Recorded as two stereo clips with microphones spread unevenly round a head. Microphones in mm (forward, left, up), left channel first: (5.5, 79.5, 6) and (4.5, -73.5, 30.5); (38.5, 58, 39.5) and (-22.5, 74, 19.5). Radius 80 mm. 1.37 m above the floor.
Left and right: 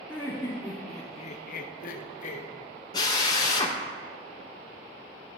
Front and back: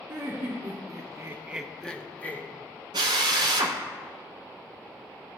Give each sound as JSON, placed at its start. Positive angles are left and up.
{"t": 0.1, "sound": "laughter", "azimuth_deg": -175, "distance_m": 1.4}
{"t": 2.9, "sound": "a drill", "azimuth_deg": 160, "distance_m": 0.8}